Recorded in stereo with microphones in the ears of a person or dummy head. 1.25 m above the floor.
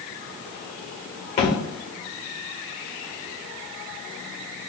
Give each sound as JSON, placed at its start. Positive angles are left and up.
{"t": 1.4, "sound": "a thud", "side_deg": 35, "distance_m": 1.0}